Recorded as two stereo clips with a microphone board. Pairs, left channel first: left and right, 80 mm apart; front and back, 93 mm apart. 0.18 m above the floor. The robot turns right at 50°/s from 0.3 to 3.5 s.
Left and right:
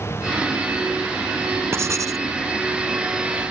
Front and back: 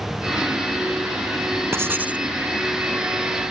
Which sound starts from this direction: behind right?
Writing, at 1.7 s.